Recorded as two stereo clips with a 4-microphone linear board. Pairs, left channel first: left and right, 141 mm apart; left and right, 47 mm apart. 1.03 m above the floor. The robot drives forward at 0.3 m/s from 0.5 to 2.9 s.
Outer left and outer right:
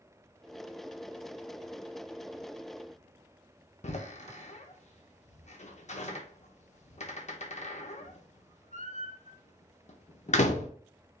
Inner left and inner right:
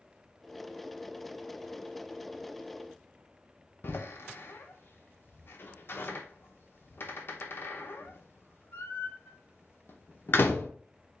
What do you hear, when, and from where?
3.8 s a door slam: 55° left (ahead or behind), 0.6 m